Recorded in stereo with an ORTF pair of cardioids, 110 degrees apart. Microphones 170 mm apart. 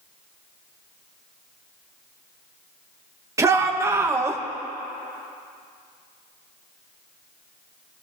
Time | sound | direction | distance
3.4 | a shout | 20° right | 2.5 m